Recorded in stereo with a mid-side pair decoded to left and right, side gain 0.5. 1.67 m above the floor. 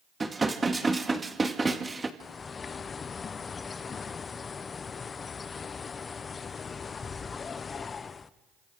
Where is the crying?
I don't hear crying.